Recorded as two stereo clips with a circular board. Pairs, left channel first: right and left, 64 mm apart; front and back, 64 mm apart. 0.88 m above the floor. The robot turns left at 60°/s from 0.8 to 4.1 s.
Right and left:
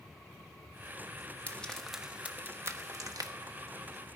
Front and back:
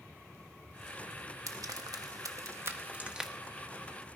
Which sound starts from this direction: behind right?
Frying, at 1.5 s.